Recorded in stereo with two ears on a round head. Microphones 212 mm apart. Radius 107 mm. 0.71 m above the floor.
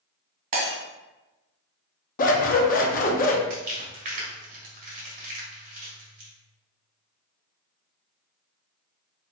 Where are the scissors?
35° left (ahead or behind), 0.7 m.